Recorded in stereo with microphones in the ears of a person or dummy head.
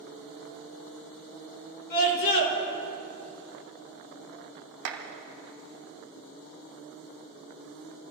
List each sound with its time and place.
1.9 s a scream: 55° left (ahead or behind), 4.5 m
4.8 s a clap: 60° right (ahead or behind), 1.9 m